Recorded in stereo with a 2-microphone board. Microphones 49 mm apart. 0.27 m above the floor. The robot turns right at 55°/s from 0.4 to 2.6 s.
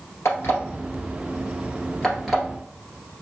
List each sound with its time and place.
0.2 s an alarm clock: 75° left (ahead or behind), 1.9 m; by 2.4 s 10° right (ahead or behind), 1.9 m